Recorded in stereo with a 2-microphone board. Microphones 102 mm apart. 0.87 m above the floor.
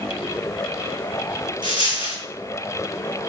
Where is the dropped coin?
50° right (ahead or behind), 1.9 m.